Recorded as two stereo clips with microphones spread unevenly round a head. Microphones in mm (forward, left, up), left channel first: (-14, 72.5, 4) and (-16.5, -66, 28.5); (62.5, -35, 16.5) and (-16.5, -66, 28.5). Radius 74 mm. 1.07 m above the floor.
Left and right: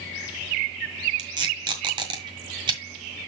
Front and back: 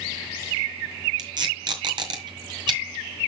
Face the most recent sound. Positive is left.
turn(degrees=-140)